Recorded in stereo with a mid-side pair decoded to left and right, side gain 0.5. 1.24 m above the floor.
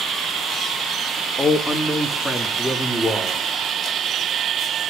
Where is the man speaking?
25° left, 1.6 m; by 3.4 s 10° left, 4 m.